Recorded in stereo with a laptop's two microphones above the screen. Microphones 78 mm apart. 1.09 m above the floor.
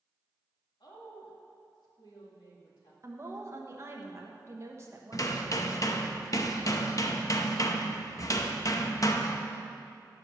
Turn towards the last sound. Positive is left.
turn(degrees=45)  # may be behind; listen again after turning